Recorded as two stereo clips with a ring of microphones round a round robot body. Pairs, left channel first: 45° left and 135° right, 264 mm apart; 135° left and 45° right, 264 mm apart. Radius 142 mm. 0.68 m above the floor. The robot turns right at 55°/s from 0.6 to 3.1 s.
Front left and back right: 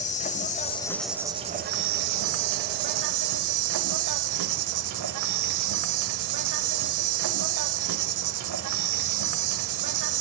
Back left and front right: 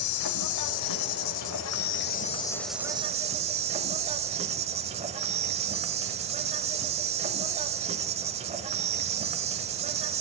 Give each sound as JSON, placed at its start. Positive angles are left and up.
{"t": 0.0, "sound": "an insect", "azimuth_deg": 110, "distance_m": 1.1}